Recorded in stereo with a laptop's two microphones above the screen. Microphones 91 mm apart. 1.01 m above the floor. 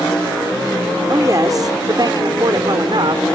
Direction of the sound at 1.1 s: 40° right (ahead or behind).